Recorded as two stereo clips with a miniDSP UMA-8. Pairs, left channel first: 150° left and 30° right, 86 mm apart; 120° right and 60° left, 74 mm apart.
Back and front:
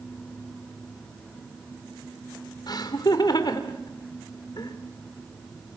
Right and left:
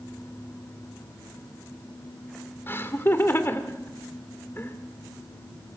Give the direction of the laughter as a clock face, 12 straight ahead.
6 o'clock.